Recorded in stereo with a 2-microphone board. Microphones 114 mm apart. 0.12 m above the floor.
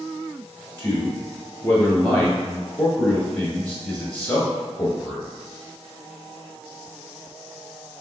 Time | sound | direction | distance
0.8 | a man speaking | 15° left (ahead or behind) | 1.2 m